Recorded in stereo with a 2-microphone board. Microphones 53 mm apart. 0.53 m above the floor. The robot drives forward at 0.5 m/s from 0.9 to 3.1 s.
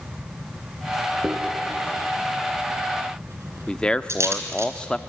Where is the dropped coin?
45° right (ahead or behind), 3.5 m; by 4.7 s 60° right (ahead or behind), 3 m.